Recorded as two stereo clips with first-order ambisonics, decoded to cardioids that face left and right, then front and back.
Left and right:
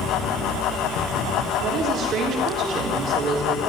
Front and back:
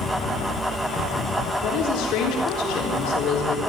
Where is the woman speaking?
35° right, 4 m.